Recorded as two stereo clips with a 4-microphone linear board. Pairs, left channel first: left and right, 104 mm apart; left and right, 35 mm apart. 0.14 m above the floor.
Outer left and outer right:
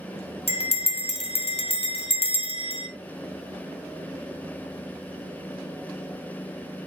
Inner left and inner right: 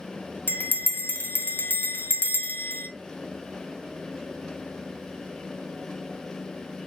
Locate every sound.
0.5 s a bell: 70° left (ahead or behind), 1.2 m